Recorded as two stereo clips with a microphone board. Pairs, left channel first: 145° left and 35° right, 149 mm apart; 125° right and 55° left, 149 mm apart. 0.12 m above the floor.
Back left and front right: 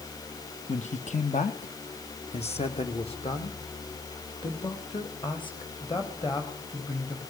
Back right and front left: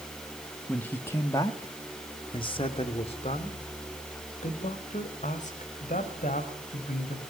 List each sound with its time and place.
0.7 s a man speaking: 155° left, 2 m; by 7.2 s 155° right, 6.5 m